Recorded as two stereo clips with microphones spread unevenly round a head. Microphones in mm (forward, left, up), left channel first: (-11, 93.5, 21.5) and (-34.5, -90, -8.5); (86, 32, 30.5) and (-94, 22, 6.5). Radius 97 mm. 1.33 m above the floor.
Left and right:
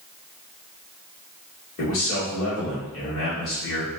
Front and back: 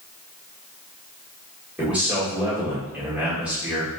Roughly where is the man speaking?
Left.